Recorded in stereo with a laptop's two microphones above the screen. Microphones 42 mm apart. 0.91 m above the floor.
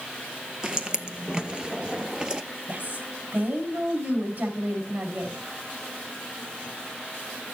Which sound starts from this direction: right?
A woman speaking, at 2.7 s.